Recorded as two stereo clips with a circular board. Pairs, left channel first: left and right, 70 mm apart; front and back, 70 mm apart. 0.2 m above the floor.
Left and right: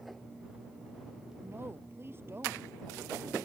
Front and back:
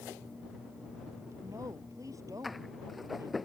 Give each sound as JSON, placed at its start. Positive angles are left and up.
{"t": 1.4, "sound": "a woman speaking", "azimuth_deg": -145}